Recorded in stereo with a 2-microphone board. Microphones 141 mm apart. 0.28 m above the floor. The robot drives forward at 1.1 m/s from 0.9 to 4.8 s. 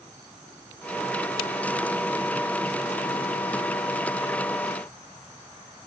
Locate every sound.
Only background noise.